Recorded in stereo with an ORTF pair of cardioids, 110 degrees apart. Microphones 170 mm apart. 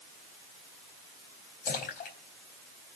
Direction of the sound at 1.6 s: 65° left.